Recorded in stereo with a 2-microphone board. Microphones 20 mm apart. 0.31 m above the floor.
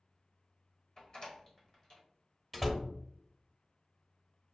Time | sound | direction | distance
1.0 | a door slam | 35° left (ahead or behind) | 1.2 m
2.5 | a door slam | 5° left (ahead or behind) | 0.7 m